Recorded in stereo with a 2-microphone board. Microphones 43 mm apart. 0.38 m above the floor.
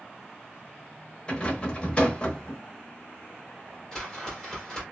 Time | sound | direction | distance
1.3 | a rattle | 25° left (ahead or behind) | 0.8 m
3.9 | a whoosh | 15° left (ahead or behind) | 1.7 m